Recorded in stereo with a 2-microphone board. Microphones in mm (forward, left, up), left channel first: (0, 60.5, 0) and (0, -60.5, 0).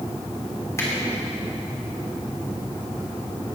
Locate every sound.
0.8 s a finger snap: 25° left (ahead or behind), 3 m